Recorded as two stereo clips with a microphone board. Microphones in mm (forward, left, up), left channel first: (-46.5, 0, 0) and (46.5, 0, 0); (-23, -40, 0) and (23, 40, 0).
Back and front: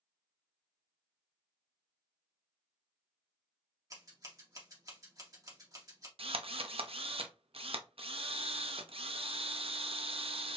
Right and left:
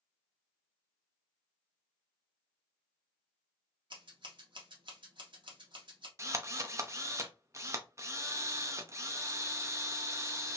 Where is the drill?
Straight ahead, 0.7 m.